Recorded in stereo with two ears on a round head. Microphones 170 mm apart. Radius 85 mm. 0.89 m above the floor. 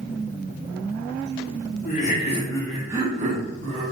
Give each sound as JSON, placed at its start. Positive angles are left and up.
{"t": 1.9, "sound": "laughter", "side_deg": 45, "distance_m": 0.9}